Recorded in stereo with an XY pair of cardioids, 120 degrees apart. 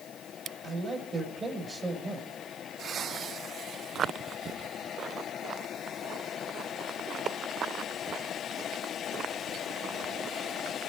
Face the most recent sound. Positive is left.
turn(degrees=-30)